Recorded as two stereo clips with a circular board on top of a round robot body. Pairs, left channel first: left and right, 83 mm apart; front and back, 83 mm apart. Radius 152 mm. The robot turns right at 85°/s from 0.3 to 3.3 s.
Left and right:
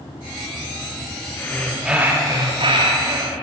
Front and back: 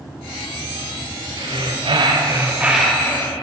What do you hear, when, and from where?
1.4 s breathing: 145° left, 4 m; by 3.4 s 50° right, 4 m